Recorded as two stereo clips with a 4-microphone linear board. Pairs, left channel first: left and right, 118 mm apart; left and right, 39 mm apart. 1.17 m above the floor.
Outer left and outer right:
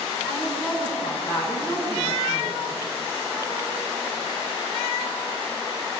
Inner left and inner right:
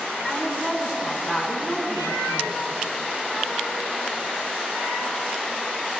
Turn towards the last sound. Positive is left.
turn(degrees=40)  # may be behind; listen again after turning